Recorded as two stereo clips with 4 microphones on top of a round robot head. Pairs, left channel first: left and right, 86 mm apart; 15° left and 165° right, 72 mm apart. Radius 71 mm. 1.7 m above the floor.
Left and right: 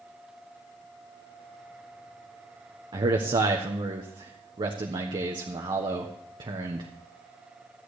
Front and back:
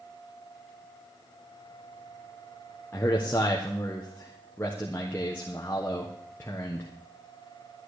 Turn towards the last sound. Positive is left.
turn(degrees=-55)